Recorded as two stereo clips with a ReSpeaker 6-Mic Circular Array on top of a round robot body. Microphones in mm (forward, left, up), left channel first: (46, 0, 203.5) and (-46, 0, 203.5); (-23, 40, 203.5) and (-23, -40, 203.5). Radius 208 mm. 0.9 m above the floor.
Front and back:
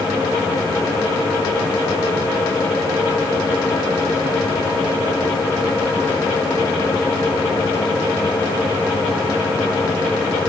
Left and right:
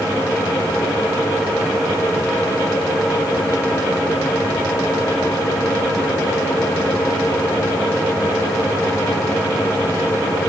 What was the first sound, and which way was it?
Only background noise.